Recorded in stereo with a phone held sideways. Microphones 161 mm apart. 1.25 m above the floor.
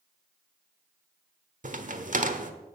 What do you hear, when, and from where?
1.6 s a crack: 50° right (ahead or behind), 1.2 m